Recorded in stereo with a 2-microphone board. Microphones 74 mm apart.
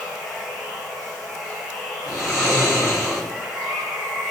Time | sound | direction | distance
0.0 | running water | centre (ahead or behind) | 1.0 m
2.1 | snoring | centre (ahead or behind) | 1.5 m